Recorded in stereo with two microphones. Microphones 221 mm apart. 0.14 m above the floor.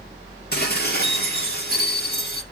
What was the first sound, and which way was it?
Dishes clattering, 45° left (ahead or behind).